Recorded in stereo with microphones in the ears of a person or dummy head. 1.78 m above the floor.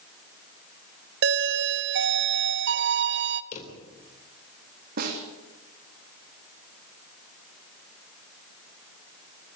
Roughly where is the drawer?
Left.